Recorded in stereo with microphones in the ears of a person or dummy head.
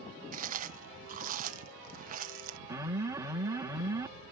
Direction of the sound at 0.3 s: 45° right (ahead or behind).